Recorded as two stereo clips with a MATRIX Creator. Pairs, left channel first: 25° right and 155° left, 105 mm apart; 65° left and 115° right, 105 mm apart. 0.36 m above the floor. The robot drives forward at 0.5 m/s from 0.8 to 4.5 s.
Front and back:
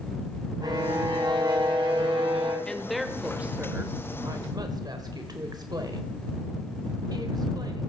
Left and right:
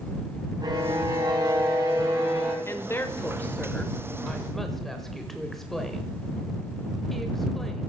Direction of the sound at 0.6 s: 155° right.